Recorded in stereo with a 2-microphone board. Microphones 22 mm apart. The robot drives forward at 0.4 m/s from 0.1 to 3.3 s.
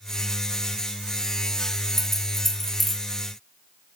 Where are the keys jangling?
5° left (ahead or behind), 1.1 m.